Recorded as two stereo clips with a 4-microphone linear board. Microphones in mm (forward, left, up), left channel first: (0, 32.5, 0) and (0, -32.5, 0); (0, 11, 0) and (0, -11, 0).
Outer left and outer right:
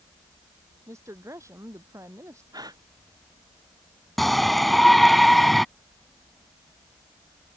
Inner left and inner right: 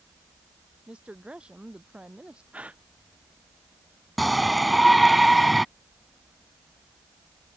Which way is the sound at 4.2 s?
Centre (ahead or behind).